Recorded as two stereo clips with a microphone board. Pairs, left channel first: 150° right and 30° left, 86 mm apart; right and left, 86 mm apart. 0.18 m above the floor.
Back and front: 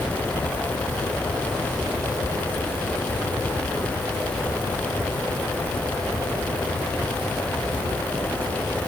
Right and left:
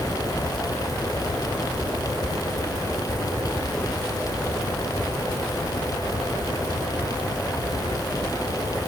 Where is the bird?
No bird in this recording.